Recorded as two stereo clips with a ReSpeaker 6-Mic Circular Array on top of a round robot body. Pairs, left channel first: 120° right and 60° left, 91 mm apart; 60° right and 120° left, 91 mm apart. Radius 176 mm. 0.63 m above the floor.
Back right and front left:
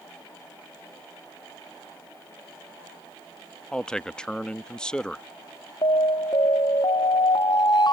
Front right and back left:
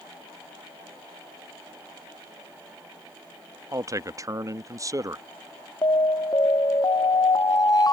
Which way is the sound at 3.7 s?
160° left.